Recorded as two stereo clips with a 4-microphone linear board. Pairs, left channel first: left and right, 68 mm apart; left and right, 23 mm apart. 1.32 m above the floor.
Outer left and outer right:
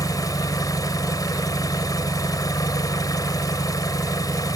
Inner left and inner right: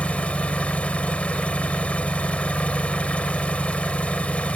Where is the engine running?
70° left (ahead or behind).